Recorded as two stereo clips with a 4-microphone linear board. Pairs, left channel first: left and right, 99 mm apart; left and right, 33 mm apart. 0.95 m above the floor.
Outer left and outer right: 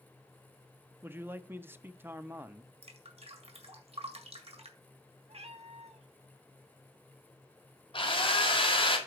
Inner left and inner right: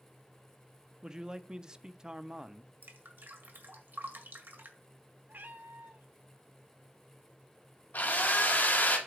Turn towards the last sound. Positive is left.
turn(degrees=55)  # may be behind; listen again after turning